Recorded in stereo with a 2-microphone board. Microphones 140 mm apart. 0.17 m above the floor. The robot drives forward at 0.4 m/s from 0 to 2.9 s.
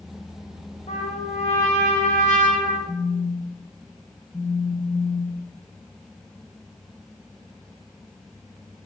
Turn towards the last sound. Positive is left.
turn(degrees=10)  # may be behind; listen again after turning